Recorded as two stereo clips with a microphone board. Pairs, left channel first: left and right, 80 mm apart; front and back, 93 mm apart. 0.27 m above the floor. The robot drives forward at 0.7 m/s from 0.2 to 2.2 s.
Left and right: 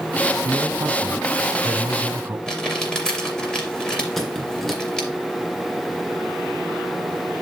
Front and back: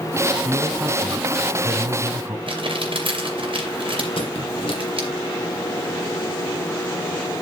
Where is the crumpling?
170° left, 3 m.